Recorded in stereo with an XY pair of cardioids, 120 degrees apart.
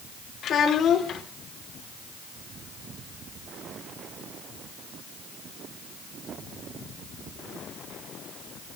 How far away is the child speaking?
About 2 m.